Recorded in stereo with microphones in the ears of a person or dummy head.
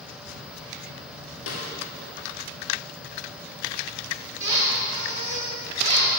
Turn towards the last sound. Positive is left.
turn(degrees=-30)  # may be behind; listen again after turning